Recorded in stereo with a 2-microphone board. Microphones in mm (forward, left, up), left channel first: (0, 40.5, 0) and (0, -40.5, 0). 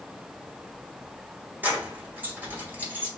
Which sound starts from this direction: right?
Keys jangling, at 1.6 s.